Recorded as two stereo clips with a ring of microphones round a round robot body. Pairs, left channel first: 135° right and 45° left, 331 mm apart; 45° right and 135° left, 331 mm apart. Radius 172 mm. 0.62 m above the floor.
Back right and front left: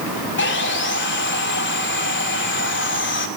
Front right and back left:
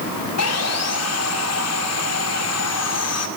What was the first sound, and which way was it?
Sawing, 85° right.